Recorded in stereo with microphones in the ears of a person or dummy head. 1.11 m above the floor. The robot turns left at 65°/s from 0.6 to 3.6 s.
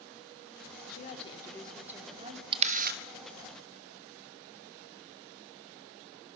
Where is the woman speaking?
55° left, 3 m; by 2.4 s 45° right, 3 m.